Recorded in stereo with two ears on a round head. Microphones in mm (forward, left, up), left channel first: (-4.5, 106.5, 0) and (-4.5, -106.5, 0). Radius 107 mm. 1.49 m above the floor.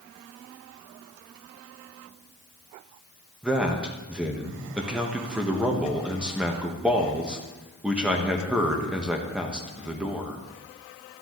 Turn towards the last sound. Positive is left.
turn(degrees=-5)  # may be behind; listen again after turning